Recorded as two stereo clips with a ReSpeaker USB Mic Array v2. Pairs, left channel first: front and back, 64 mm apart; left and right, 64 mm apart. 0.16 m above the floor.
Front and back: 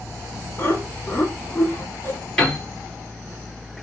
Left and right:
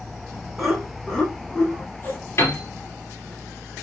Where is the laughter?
5° right, 1.2 m; by 2.2 s 50° left, 1.5 m.